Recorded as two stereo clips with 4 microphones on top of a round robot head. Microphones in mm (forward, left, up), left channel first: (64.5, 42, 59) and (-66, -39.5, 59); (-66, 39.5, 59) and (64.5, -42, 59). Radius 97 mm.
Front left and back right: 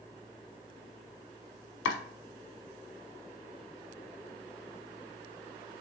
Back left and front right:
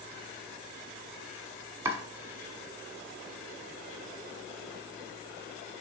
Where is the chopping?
45° left, 0.9 m.